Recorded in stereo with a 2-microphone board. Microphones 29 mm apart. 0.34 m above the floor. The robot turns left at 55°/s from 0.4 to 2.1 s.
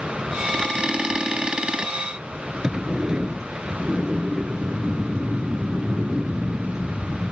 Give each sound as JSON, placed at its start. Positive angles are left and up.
{"t": 2.6, "sound": "a sliding door", "side_deg": -25}